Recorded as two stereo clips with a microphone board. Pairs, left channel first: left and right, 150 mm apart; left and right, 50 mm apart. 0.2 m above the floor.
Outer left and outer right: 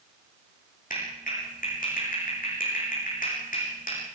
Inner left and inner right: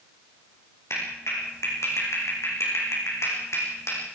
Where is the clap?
80° left, 9.5 m.